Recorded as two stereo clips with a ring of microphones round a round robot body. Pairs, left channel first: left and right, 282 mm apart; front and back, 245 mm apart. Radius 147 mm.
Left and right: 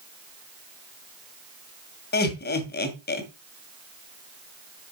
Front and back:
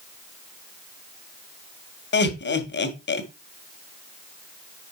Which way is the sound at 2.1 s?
40° left.